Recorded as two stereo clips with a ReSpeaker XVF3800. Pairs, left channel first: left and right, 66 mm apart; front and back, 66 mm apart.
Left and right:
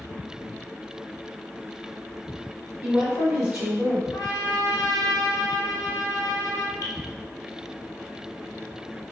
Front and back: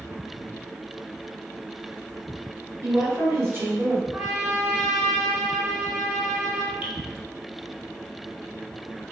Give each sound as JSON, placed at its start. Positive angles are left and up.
{"t": 2.8, "sound": "a woman speaking", "azimuth_deg": -155, "distance_m": 1.5}
{"t": 4.1, "sound": "a trumpet", "azimuth_deg": 85, "distance_m": 0.7}
{"t": 6.8, "sound": "dripping", "azimuth_deg": 110, "distance_m": 0.7}